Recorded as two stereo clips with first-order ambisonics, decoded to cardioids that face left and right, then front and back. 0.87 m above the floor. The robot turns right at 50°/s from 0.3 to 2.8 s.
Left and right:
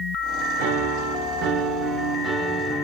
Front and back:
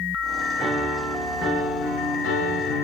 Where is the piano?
90° right, 3.5 m; by 2.8 s 25° left, 3.5 m.